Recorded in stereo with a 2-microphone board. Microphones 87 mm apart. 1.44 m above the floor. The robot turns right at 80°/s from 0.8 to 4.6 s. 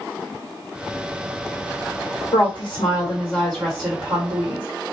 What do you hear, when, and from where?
2.3 s a woman speaking: 85° left, 1.6 m; by 4.7 s 95° right, 1.6 m